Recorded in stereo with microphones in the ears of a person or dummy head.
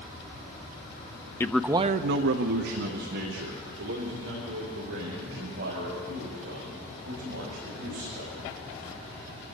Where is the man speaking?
20° left (ahead or behind), 0.6 m; by 8.3 s 55° right (ahead or behind), 7.5 m.